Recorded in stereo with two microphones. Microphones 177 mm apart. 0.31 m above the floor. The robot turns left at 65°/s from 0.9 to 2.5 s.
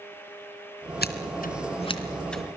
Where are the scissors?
70° left (ahead or behind), 3 m; by 2.4 s centre (ahead or behind), 3 m.